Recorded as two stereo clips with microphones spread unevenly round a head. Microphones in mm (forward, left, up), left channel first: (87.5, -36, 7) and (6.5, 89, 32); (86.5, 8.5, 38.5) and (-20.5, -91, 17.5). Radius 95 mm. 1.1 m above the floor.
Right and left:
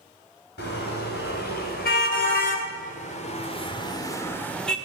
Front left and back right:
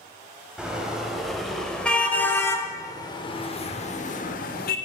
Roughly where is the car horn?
Ahead right.